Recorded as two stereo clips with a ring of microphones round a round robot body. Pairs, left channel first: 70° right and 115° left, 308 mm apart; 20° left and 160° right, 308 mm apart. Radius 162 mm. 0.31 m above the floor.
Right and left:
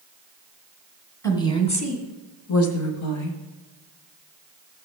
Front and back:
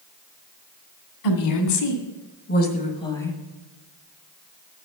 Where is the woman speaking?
10° left, 2 m; by 3.4 s 65° right, 1.8 m.